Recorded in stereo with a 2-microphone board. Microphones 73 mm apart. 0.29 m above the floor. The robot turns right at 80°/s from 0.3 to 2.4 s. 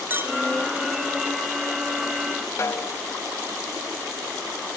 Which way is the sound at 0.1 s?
30° right (ahead or behind).